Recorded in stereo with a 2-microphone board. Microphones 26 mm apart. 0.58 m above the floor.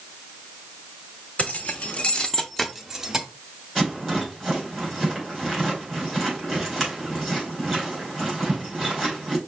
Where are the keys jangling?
65° left (ahead or behind), 0.9 m; by 3.2 s 25° right (ahead or behind), 0.8 m.